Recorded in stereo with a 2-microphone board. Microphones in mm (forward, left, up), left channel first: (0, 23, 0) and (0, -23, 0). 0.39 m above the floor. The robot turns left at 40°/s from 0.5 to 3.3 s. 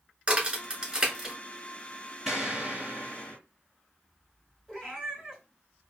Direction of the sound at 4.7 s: 10° right (ahead or behind).